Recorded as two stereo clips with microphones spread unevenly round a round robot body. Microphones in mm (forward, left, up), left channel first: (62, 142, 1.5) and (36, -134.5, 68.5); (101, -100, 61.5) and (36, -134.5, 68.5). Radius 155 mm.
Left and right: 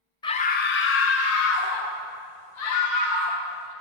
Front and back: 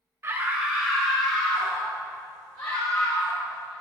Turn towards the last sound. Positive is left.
turn(degrees=105)